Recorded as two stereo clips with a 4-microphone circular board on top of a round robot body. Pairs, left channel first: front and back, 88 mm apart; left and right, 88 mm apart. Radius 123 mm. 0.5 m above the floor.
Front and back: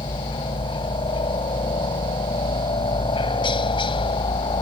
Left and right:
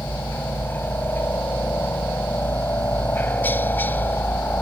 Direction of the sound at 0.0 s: 20° left.